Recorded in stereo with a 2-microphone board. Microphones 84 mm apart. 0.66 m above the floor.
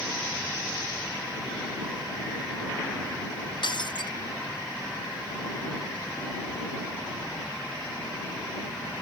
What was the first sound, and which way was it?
Breaking glass, 65° left (ahead or behind).